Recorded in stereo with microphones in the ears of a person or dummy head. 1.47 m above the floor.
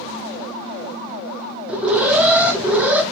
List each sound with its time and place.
1.7 s an alarm: centre (ahead or behind), 0.7 m